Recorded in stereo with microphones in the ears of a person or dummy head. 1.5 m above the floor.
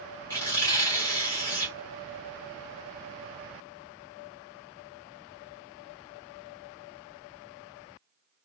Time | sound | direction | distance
0.3 | tearing paper | 15° left (ahead or behind) | 1.0 m